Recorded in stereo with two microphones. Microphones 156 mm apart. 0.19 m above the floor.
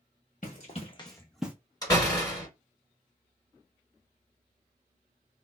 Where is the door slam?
25° left (ahead or behind), 1.9 m.